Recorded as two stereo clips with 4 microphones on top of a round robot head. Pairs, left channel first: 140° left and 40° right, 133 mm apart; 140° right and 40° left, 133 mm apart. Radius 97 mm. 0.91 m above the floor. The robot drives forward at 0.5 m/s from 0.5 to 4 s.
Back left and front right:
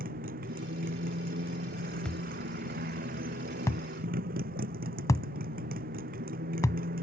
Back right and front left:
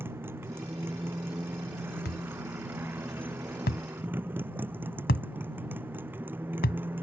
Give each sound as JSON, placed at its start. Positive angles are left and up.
{"t": 0.0, "sound": "a motorcycle", "azimuth_deg": -35}
{"t": 2.0, "sound": "a thud", "azimuth_deg": -140}